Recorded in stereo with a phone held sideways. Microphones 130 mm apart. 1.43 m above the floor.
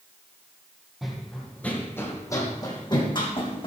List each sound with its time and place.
1.0 s running footsteps: centre (ahead or behind), 2.5 m; by 3.7 s 45° left (ahead or behind), 4 m